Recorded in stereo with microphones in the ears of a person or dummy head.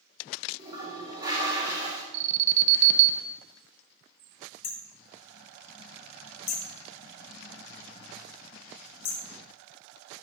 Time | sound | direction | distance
0.6 | a toilet flushing | 30° right (ahead or behind) | 2.5 m
2.1 | an alarm | 35° right (ahead or behind) | 0.6 m
4.6 | hammering | 40° left (ahead or behind) | 0.6 m